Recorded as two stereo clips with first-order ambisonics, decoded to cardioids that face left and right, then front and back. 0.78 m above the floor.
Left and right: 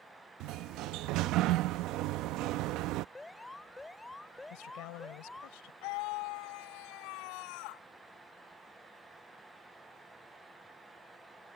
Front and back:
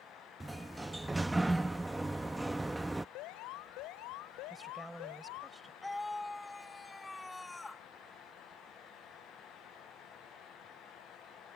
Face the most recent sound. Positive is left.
turn(degrees=80)